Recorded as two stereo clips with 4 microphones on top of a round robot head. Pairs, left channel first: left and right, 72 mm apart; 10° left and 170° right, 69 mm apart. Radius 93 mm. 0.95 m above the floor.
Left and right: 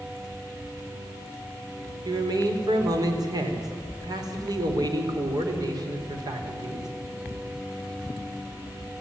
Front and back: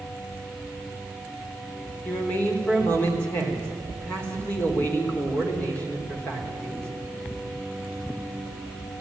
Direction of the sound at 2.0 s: 60° right.